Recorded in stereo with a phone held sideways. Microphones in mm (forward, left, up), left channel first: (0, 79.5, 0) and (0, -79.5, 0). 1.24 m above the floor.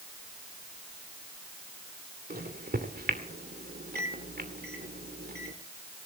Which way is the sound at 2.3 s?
80° right.